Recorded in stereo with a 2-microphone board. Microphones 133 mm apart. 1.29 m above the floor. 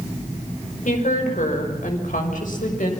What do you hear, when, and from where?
0.8 s a woman speaking: 80° left, 5.5 m; by 2.9 s 90° left, 6.5 m